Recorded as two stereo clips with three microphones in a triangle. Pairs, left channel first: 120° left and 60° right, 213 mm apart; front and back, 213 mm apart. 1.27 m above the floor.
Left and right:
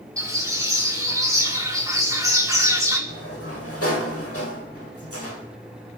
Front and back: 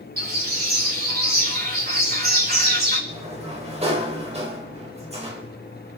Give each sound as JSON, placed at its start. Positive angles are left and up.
{"t": 0.2, "sound": "a bird", "azimuth_deg": -135, "distance_m": 4.5}
{"t": 3.1, "sound": "a sliding door", "azimuth_deg": 120, "distance_m": 3.5}